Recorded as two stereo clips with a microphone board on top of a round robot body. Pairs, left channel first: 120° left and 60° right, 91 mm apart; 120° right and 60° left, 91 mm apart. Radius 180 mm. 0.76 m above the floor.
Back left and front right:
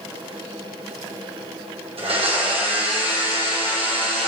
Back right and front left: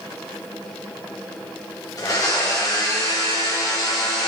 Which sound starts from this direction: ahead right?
A blender, at 2.0 s.